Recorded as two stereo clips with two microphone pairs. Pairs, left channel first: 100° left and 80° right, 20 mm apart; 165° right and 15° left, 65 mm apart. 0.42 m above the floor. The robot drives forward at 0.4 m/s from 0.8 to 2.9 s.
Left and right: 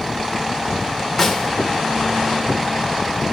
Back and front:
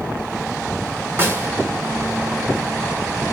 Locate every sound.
1.2 s a snare drum: 30° left, 1.2 m; by 1.5 s 35° left, 1.1 m